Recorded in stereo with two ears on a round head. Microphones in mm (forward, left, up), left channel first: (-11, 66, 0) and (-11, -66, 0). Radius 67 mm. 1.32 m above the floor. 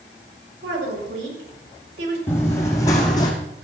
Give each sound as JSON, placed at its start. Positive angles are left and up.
{"t": 0.6, "sound": "a woman speaking", "side_deg": -90, "distance_m": 6.5}
{"t": 2.3, "sound": "running footsteps", "side_deg": 15, "distance_m": 3.5}